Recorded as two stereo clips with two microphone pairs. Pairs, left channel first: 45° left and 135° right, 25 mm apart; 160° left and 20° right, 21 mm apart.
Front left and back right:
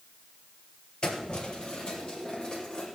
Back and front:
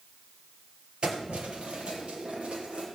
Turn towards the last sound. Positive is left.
turn(degrees=-15)